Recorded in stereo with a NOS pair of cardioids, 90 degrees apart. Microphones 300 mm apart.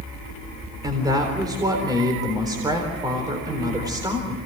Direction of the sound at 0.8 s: 10° right.